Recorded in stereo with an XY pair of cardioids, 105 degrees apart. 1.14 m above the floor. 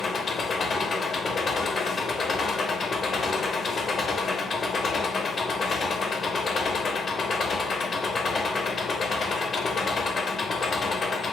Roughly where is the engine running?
Ahead left.